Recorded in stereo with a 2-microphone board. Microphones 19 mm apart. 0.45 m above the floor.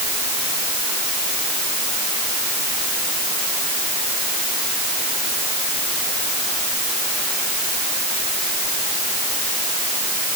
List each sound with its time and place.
Only background noise.